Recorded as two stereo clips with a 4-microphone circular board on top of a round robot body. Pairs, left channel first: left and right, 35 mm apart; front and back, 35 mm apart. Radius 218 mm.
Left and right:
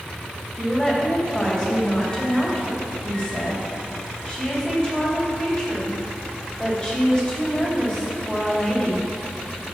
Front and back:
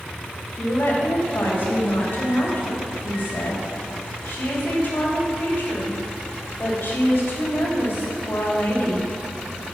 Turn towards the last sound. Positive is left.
turn(degrees=20)